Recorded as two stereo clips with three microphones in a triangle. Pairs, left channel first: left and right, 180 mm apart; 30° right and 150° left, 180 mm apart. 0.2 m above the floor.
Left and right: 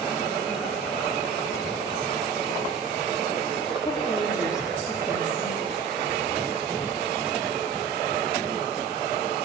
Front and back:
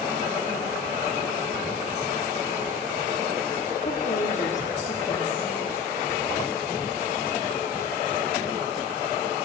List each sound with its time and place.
3.8 s a woman speaking: 20° left, 6.5 m